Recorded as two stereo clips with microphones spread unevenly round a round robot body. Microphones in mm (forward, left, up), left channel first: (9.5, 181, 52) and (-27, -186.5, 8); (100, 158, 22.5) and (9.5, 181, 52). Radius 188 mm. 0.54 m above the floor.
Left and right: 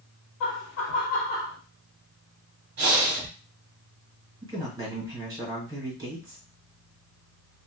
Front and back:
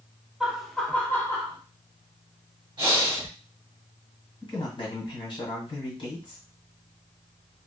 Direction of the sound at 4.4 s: 20° right.